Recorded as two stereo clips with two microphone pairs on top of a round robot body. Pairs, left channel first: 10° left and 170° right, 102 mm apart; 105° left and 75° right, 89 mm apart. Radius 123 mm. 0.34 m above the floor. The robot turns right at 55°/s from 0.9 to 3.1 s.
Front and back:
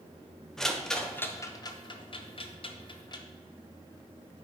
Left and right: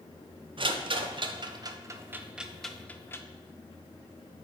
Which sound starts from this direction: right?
A rattle, at 0.6 s.